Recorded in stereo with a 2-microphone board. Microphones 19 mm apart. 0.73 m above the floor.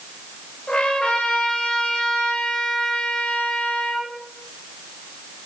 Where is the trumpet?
75° left (ahead or behind), 3.5 m.